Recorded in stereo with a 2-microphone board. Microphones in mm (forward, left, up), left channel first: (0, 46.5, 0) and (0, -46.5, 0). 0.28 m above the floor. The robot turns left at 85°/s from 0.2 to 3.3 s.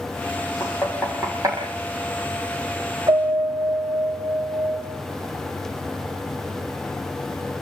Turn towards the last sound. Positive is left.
turn(degrees=-15)  # may be behind; listen again after turning